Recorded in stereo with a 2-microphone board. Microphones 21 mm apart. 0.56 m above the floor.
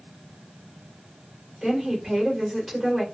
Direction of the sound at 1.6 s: 5° left (ahead or behind).